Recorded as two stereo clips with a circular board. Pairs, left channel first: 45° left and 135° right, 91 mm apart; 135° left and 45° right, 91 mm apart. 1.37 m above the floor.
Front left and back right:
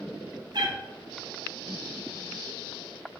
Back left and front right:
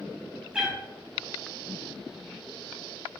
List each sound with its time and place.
0.5 s a cat meowing: 125° right, 0.8 m